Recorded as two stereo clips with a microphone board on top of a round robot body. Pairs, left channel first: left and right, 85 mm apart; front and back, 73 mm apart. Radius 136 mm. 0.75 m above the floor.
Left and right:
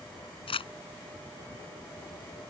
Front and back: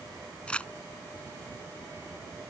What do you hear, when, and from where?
0.5 s crumpling: 75° left